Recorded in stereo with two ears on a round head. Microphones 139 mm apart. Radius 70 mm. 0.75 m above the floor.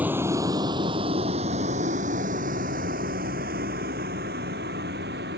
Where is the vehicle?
10° right (ahead or behind); by 5.4 s 70° right (ahead or behind).